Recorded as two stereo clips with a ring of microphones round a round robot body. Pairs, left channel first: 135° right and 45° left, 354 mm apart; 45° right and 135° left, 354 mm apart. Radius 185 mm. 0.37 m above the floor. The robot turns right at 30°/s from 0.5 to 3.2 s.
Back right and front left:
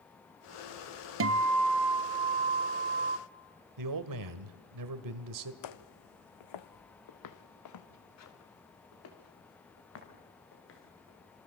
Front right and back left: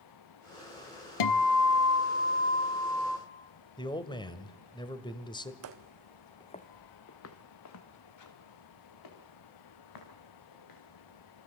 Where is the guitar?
10° right, 0.8 m; by 3.2 s 50° left, 0.8 m.